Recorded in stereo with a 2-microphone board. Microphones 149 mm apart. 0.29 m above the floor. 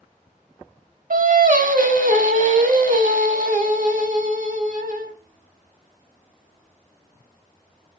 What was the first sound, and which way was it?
Singing, 70° right (ahead or behind).